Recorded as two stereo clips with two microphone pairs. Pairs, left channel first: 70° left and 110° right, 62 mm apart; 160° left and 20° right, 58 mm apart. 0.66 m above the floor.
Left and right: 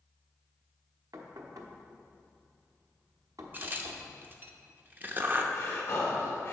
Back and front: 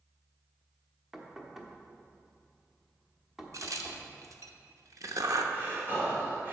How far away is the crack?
About 0.7 m.